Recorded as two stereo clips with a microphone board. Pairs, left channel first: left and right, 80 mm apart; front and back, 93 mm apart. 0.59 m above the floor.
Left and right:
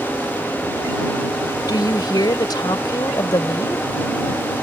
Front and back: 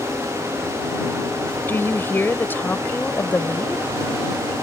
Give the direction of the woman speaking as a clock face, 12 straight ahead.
10 o'clock.